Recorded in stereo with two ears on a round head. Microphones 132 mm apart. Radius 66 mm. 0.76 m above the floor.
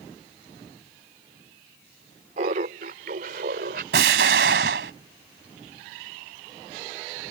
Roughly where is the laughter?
Right.